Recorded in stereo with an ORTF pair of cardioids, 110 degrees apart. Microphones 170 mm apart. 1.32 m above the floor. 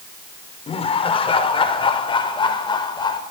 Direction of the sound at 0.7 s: 35° left.